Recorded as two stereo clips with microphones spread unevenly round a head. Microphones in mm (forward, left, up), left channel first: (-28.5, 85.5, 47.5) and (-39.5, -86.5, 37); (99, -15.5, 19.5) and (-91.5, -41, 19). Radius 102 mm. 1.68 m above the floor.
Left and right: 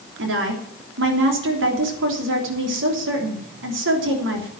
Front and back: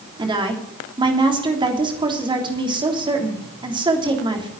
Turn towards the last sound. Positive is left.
turn(degrees=-105)